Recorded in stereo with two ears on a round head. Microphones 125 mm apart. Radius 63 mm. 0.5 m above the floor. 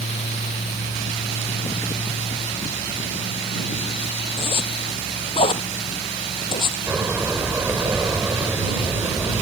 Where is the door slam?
15° right (ahead or behind).